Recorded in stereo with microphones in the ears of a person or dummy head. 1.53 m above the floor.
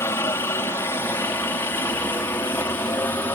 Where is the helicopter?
10° left (ahead or behind).